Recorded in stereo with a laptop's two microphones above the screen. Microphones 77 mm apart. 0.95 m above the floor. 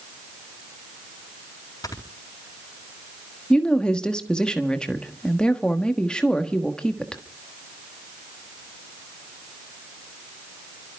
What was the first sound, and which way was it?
Snoring, 55° left (ahead or behind).